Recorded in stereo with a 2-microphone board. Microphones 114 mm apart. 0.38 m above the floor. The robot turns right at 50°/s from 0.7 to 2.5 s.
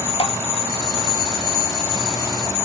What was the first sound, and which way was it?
Dripping, 55° left (ahead or behind).